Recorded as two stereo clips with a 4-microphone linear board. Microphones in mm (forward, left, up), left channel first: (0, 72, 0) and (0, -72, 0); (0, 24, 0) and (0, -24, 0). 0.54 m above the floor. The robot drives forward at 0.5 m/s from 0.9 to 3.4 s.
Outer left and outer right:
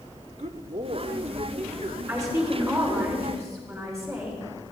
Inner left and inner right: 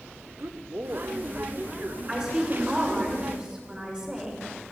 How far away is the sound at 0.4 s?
About 1.0 m.